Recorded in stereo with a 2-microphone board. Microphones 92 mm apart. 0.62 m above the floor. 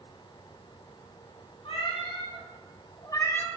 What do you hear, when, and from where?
1.6 s a cat meowing: 75° left (ahead or behind), 2.5 m; by 3.5 s 10° left (ahead or behind), 0.7 m